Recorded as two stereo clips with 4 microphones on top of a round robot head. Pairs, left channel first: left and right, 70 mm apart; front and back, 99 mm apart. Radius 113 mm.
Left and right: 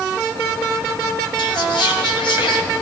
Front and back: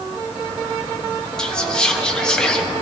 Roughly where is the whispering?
Left.